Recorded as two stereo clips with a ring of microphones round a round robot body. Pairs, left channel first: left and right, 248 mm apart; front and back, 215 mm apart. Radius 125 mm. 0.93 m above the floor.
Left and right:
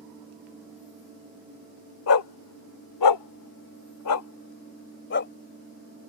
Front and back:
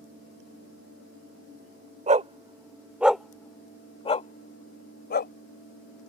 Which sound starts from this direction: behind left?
A dog barking, at 2.1 s.